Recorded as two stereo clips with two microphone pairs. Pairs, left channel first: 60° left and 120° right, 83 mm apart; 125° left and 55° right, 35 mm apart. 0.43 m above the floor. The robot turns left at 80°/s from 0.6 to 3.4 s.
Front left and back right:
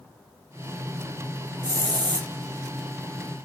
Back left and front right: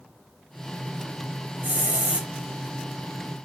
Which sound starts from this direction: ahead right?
A hiss, at 1.6 s.